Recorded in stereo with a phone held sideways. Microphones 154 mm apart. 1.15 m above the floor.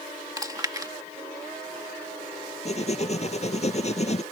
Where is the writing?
45° left (ahead or behind).